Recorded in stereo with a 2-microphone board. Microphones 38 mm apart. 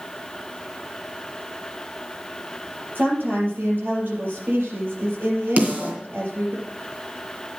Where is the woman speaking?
75° right (ahead or behind), 5 m.